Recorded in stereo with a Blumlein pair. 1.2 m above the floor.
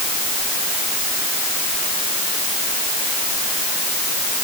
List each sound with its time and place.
Only background noise.